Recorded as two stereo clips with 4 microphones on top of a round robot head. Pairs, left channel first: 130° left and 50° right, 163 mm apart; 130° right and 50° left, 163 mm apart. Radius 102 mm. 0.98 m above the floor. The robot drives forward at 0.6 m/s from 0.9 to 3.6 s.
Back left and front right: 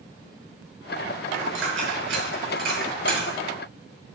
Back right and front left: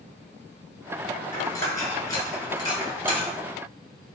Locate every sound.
1.3 s a dropped coin: 55° right, 5 m; by 3.3 s 70° right, 4.5 m